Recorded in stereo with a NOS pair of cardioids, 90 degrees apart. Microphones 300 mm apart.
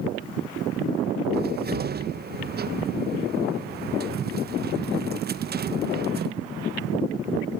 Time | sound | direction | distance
1.3 | a cupboard door | 35° right | 1.1 m